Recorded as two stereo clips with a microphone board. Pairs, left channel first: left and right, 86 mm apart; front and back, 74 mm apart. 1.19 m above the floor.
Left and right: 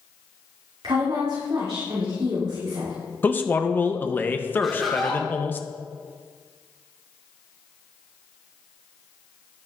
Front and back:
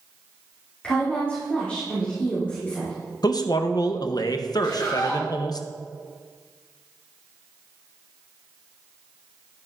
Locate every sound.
0.8 s a woman speaking: 70° right, 2.5 m
3.2 s a man speaking: 20° left, 0.7 m
4.6 s laughter: straight ahead, 1.3 m